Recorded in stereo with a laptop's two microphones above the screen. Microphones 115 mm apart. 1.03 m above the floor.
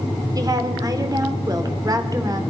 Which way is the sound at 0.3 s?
35° right (ahead or behind).